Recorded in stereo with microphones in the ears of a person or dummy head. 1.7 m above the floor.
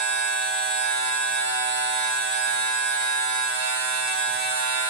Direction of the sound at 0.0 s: 55° right (ahead or behind).